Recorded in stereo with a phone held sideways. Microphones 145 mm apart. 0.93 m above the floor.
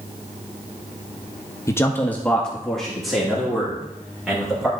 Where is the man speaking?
20° left (ahead or behind), 0.7 m; by 4.7 s 5° right (ahead or behind), 3 m.